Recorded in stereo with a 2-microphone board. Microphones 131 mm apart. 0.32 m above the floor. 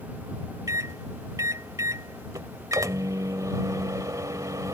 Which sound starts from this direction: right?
A microwave, at 0.7 s.